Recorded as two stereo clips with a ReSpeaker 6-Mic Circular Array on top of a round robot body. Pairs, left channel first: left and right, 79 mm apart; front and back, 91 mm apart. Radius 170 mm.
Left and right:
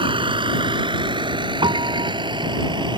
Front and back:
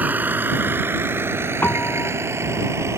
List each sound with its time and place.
0.0 s a vehicle: 110° right; by 3.0 s 120° right
1.6 s a piano: 70° right